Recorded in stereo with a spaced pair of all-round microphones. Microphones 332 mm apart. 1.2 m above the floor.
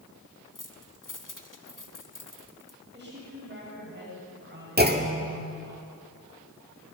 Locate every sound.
0.6 s keys jangling: 70° left (ahead or behind), 1.6 m
2.9 s a woman speaking: 30° right (ahead or behind), 8 m
4.8 s a clunk: 30° right (ahead or behind), 1.9 m